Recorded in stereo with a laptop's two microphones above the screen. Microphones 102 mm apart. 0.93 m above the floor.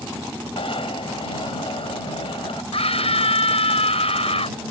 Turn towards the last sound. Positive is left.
turn(degrees=80)